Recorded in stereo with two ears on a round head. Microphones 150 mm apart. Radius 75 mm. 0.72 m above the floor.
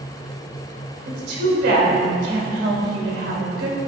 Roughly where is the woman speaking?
Right.